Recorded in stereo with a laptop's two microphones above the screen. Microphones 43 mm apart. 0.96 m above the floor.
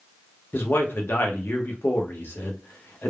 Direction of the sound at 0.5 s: 50° left (ahead or behind).